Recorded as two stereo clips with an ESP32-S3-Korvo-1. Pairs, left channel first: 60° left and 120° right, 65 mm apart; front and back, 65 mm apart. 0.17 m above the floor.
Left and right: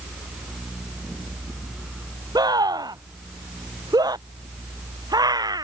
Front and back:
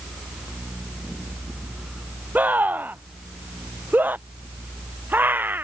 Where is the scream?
115° right; by 5.6 s 120° right.